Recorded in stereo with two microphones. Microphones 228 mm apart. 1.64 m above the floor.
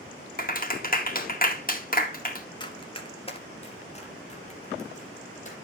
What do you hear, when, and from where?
0.4 s a clap: 40° left (ahead or behind), 2.0 m
2.6 s running footsteps: 20° left (ahead or behind), 1.8 m; by 5.5 s 35° left (ahead or behind), 3.5 m